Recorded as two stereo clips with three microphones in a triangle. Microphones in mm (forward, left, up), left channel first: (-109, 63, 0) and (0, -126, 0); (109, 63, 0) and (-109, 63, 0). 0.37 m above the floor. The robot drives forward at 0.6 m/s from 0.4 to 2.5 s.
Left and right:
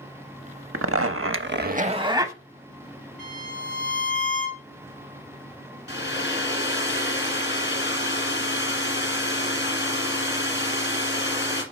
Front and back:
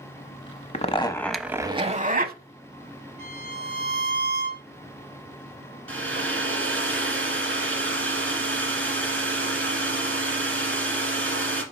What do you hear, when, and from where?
0.7 s a zipper: 55° right, 0.6 m; by 2.4 s 140° right, 0.8 m
3.2 s a violin: 140° left, 3 m
5.9 s a hair dryer: 155° left, 1.9 m